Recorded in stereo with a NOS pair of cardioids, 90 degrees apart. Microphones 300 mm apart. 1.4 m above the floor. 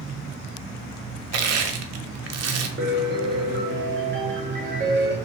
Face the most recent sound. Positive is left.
turn(degrees=-35)